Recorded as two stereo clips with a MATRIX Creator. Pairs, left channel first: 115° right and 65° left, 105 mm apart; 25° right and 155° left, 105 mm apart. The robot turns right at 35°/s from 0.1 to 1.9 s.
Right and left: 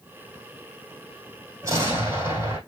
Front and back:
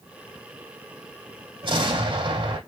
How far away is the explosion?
About 3 m.